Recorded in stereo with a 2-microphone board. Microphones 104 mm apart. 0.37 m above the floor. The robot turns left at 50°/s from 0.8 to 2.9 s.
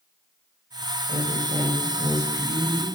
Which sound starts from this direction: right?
A woman speaking, at 1.1 s.